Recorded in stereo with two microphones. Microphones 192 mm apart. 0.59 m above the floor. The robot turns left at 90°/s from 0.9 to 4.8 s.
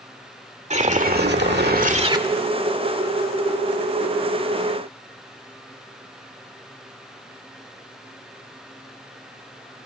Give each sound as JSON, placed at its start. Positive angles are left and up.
{"t": 0.7, "sound": "a whoosh", "azimuth_deg": -40, "distance_m": 1.7}